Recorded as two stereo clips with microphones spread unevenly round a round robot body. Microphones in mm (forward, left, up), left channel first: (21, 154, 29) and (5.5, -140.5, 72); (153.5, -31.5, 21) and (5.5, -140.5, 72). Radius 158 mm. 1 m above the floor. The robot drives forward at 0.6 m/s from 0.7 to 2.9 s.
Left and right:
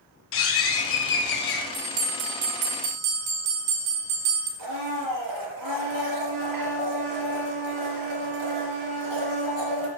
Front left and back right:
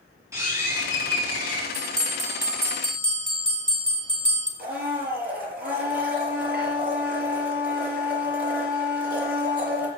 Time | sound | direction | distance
0.3 | a bird | 140° left | 2.5 m
1.7 | a bell | 85° right | 4.5 m
4.6 | a blender | 115° right | 4.5 m